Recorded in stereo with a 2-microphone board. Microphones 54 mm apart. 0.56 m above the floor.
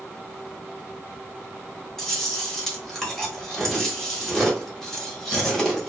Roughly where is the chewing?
Centre.